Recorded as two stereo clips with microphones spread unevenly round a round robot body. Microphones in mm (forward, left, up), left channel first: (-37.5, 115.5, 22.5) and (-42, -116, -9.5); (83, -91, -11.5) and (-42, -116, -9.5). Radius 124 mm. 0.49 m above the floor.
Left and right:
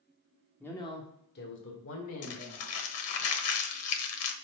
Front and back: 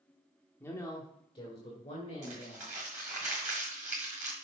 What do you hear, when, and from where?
0.6 s a woman speaking: 10° right, 1.1 m; by 3.2 s 65° left, 3.5 m
2.2 s crumpling: 110° left, 1.2 m